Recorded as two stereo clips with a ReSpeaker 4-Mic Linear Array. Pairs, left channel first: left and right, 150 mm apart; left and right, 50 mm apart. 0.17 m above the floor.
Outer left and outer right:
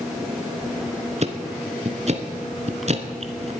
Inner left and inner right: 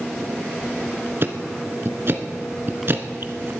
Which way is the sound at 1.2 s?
50° right (ahead or behind).